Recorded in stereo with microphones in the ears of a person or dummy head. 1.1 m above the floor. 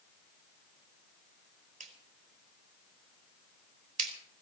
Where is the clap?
45° right (ahead or behind), 3.5 m.